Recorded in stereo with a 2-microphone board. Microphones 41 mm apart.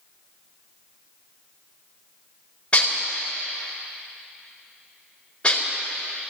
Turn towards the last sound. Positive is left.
turn(degrees=30)  # may be behind; listen again after turning